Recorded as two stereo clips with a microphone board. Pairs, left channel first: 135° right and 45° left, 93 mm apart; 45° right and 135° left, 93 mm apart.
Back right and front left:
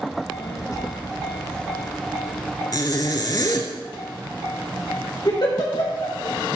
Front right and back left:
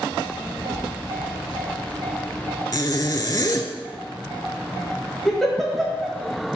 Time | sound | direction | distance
0.1 | a child speaking | 140° right | 0.7 m
2.7 | a zipper | 90° right | 0.7 m
5.2 | a giggle | 130° right | 1.4 m